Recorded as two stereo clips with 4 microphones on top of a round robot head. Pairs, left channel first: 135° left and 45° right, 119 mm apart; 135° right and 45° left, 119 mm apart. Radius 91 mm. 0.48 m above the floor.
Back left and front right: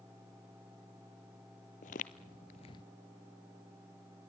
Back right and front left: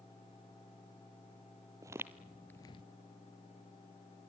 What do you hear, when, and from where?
1.8 s footsteps: 110° left, 1.1 m; by 2.8 s 170° right, 0.7 m